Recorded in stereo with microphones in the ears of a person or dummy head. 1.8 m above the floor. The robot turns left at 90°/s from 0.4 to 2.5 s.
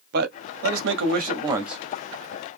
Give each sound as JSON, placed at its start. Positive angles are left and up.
{"t": 0.1, "sound": "a man speaking", "azimuth_deg": -65, "distance_m": 0.8}